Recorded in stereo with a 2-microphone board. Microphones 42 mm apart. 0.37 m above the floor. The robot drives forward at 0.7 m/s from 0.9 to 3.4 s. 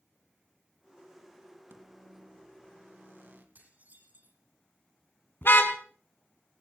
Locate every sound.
1.7 s a microwave: 70° right (ahead or behind), 2.5 m; by 3.5 s 65° right (ahead or behind), 2.5 m
3.5 s dishes clattering: 50° right (ahead or behind), 9 m
5.4 s a car horn: 60° left (ahead or behind), 2 m